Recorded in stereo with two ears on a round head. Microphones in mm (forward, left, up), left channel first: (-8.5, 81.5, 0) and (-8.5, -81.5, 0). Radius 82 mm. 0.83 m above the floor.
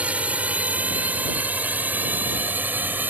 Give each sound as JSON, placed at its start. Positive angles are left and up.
{"t": 0.0, "sound": "a drone", "side_deg": -10}